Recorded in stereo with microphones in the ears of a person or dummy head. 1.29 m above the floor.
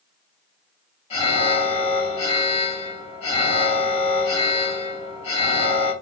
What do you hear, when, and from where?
1.1 s an alarm: 30° left (ahead or behind), 1.5 m